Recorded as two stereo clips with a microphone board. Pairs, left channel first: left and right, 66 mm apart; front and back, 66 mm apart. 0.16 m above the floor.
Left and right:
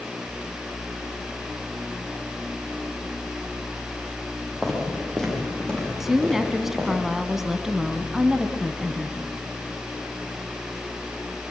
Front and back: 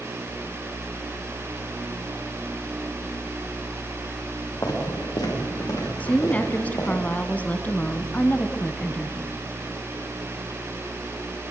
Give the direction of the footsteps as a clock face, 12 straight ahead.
12 o'clock.